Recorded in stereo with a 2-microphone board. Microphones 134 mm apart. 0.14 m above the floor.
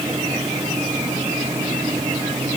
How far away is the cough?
I don't hear a cough.